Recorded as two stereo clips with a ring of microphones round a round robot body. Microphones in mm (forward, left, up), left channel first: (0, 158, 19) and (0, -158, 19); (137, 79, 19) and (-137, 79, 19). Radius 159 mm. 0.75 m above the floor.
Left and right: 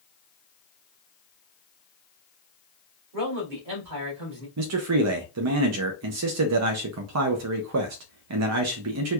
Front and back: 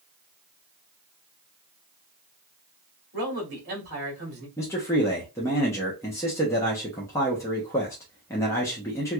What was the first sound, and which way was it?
A man speaking, 120° right.